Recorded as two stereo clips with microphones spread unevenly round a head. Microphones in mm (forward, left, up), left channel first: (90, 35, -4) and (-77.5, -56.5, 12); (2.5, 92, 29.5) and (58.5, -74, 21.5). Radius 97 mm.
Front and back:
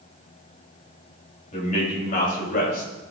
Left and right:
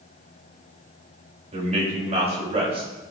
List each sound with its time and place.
1.5 s a man speaking: 20° right, 6.5 m; by 2.9 s 15° right, 6.5 m